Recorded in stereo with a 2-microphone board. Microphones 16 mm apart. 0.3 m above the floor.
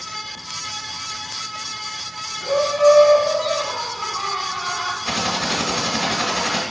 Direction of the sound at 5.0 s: 25° left (ahead or behind).